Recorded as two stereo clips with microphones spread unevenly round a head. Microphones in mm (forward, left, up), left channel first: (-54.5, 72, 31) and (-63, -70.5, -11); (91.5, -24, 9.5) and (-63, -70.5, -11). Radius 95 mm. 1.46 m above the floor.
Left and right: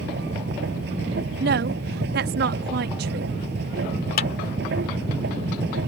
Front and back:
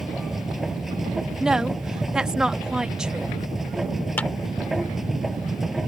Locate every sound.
0.0 s a machine running: 75° right
1.4 s a woman speaking: 75° right
4.2 s a clap: 100° left